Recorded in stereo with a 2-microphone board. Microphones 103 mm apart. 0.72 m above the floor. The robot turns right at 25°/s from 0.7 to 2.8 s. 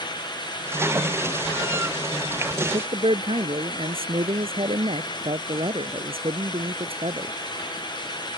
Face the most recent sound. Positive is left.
turn(degrees=-60)  # may be behind; listen again after turning